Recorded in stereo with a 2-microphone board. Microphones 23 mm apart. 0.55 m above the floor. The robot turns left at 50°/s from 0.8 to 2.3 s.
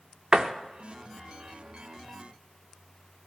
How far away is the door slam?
About 0.6 m.